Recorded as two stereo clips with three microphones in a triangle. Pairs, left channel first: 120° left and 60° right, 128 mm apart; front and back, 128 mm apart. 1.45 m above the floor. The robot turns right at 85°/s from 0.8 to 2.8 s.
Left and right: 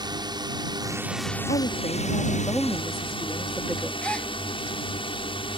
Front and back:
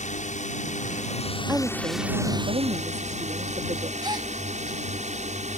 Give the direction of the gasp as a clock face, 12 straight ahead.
5 o'clock.